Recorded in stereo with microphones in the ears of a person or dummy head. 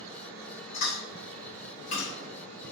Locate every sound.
0.7 s chewing: 35° left (ahead or behind), 1.2 m